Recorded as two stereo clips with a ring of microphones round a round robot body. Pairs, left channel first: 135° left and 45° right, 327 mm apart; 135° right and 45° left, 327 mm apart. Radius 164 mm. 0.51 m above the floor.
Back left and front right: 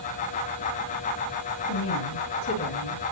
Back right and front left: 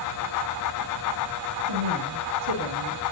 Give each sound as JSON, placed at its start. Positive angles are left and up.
{"t": 1.7, "sound": "a woman speaking", "azimuth_deg": 85, "distance_m": 9.0}